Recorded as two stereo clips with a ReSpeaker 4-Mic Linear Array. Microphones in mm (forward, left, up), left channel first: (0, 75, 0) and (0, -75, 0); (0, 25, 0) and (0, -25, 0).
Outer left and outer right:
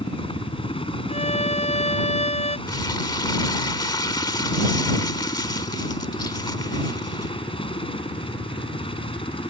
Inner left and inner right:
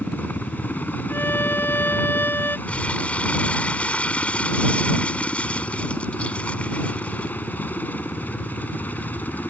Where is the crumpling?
30° left (ahead or behind).